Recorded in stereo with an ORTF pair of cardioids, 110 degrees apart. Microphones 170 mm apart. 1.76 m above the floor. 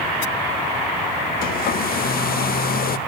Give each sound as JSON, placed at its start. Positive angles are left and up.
{"t": 1.4, "sound": "a hair dryer", "azimuth_deg": 65, "distance_m": 0.6}